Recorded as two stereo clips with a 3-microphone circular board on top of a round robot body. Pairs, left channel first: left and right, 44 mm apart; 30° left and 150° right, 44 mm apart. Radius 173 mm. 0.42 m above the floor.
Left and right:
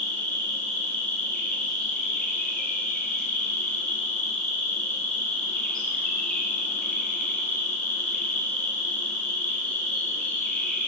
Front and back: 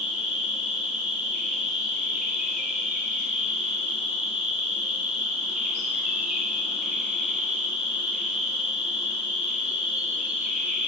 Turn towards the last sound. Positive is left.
turn(degrees=155)